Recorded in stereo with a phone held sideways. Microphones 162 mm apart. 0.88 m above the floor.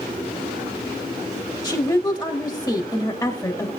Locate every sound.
1.6 s a woman speaking: 15° left (ahead or behind), 1.7 m